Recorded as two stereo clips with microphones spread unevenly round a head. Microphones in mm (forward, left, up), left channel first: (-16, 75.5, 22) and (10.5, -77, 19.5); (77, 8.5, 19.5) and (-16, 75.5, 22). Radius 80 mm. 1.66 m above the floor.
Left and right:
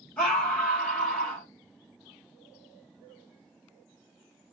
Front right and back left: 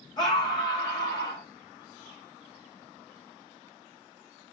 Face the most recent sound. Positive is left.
turn(degrees=15)